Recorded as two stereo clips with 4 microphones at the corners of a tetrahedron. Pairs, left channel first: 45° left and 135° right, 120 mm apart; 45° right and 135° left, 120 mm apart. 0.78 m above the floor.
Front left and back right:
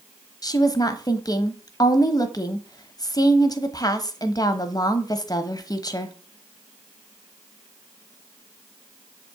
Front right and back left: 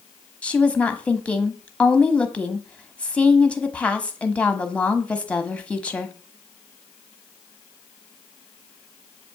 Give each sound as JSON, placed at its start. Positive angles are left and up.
{"t": 0.4, "sound": "a woman speaking", "azimuth_deg": 25, "distance_m": 1.0}